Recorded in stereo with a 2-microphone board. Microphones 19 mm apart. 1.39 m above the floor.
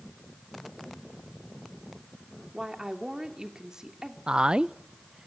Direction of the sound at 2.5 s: 35° right (ahead or behind).